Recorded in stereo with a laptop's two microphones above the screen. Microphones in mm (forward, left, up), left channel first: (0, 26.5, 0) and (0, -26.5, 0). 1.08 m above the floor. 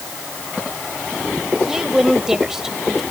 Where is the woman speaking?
10° right (ahead or behind).